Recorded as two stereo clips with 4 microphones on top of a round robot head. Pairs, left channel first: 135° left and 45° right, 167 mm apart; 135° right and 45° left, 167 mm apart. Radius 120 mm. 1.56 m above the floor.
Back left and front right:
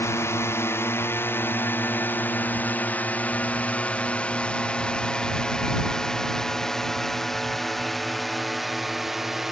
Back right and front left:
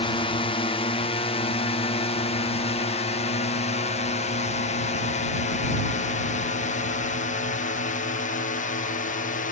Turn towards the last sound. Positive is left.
turn(degrees=-130)